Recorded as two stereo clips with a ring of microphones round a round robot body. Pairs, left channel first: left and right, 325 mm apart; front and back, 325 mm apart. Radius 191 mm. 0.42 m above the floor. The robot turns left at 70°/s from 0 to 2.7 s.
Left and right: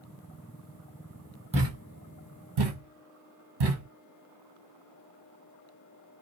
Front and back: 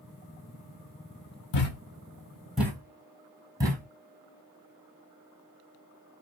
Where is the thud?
20° right, 1.3 m; by 3.9 s 100° right, 1.3 m.